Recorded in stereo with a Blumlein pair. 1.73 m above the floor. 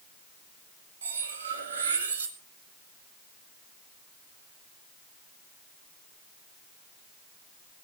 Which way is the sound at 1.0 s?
65° right.